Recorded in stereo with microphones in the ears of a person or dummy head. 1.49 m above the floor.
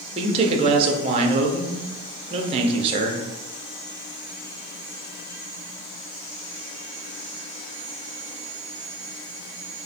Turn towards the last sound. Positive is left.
turn(degrees=-30)  # may be behind; listen again after turning